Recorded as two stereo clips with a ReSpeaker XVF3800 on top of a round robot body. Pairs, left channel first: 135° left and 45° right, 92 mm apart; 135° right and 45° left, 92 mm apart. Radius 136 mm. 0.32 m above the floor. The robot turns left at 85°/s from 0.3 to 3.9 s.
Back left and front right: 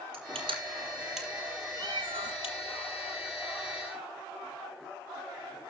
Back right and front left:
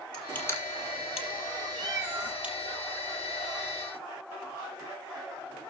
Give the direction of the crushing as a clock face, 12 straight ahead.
2 o'clock.